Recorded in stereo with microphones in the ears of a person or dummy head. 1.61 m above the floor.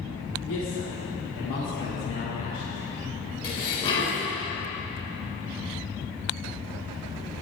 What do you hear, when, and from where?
0.5 s a man speaking: 65° left (ahead or behind), 4 m; by 2.8 s 55° left (ahead or behind), 5.5 m
3.4 s dishes clattering: 20° left (ahead or behind), 5 m